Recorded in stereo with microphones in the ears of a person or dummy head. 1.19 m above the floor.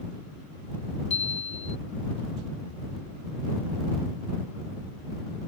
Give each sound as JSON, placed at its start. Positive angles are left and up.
{"t": 1.1, "sound": "a chime", "side_deg": 35}